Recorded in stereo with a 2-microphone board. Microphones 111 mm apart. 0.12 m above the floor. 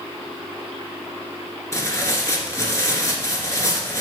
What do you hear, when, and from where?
1.7 s tearing paper: 25° left (ahead or behind), 1.8 m